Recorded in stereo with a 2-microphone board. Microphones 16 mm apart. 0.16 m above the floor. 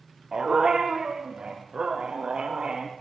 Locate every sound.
0.3 s a dog barking: 35° right (ahead or behind), 6 m; by 2.9 s 50° right (ahead or behind), 6.5 m